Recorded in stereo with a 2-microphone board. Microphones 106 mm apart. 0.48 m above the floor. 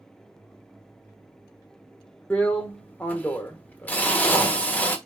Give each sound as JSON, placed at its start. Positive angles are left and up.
{"t": 2.3, "sound": "a drill", "side_deg": 15, "distance_m": 0.9}